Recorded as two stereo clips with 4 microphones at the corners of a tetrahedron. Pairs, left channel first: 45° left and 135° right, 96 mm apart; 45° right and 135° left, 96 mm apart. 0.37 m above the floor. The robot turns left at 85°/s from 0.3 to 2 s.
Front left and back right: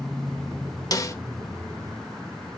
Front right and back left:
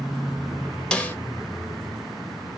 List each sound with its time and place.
0.9 s a snare drum: 30° left, 0.9 m; by 1.2 s 10° left, 0.9 m